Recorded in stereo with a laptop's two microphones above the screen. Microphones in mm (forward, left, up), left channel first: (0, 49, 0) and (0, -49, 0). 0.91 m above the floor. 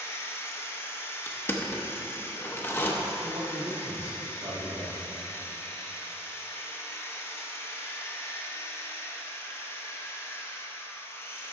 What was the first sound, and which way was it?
A machine running, 25° left (ahead or behind).